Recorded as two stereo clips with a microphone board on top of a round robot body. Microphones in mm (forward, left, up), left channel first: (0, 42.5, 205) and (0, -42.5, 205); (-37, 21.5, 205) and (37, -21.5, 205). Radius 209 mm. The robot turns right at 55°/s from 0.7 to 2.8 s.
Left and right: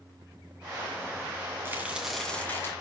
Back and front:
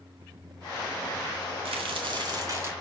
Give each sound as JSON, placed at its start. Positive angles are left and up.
{"t": 1.6, "sound": "a crack", "azimuth_deg": -25, "distance_m": 2.0}